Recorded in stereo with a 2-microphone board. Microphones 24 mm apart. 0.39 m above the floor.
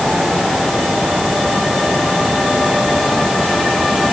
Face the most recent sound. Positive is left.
No sound to turn to.